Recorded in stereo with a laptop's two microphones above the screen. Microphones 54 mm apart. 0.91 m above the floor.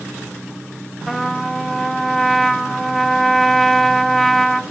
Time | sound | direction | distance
1.1 | a trumpet | 5° left (ahead or behind) | 1.8 m